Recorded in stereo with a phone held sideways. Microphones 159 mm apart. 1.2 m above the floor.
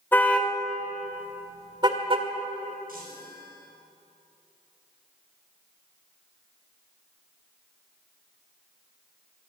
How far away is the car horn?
About 2.5 m.